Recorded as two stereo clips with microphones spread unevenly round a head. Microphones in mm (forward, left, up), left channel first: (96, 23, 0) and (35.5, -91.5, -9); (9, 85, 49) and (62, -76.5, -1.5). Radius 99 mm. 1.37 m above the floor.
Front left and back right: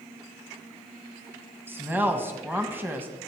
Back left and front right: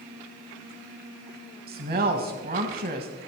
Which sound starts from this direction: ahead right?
A woman speaking, at 1.7 s.